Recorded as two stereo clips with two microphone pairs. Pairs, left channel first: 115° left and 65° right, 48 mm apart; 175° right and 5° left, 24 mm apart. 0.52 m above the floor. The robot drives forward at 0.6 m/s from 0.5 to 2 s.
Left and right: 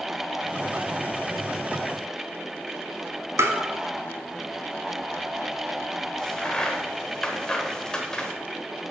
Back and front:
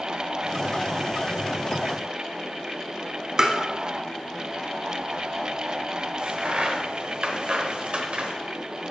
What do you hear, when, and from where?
3.4 s tapping: 55° right, 1.0 m
6.2 s a crack: 35° left, 1.0 m